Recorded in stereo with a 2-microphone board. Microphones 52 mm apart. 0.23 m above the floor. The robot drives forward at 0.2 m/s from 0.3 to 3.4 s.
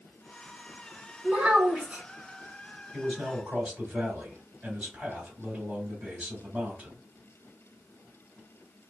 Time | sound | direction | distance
1.2 | a child speaking | 30° right (ahead or behind) | 1.4 m
2.9 | a man speaking | 25° right (ahead or behind) | 1.7 m